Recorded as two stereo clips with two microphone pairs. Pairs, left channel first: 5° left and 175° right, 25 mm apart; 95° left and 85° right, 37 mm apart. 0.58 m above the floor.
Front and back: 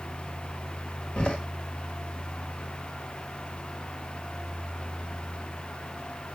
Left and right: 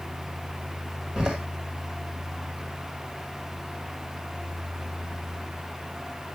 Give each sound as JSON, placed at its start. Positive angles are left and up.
{"t": 1.2, "sound": "a door slam", "azimuth_deg": -15, "distance_m": 1.6}